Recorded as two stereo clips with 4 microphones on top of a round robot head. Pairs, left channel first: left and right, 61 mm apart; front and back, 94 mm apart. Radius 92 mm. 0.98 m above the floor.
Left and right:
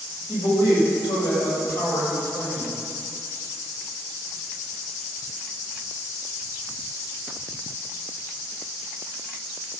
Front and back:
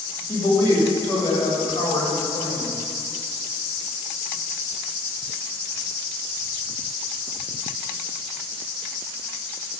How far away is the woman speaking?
About 6 m.